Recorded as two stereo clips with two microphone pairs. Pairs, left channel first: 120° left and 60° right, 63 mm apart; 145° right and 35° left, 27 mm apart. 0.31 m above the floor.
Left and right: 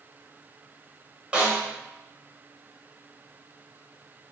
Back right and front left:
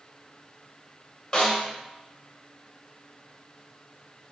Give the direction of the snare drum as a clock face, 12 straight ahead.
4 o'clock.